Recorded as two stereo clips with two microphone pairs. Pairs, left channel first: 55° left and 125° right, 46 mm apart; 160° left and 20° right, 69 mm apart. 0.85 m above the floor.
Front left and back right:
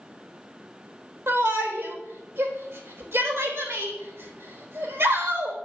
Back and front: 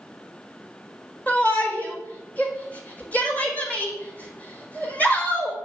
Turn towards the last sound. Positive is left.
turn(degrees=-130)